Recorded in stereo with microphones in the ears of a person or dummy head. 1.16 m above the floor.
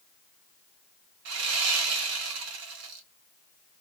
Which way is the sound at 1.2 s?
75° right (ahead or behind).